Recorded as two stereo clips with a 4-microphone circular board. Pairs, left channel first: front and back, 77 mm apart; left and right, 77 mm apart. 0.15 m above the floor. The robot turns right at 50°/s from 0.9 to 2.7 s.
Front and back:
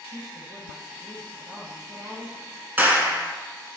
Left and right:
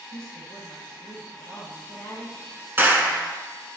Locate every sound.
0.1 s a woman speaking: 100° left, 3 m; by 2.4 s 175° left, 3 m
2.8 s a clap: 135° right, 1.6 m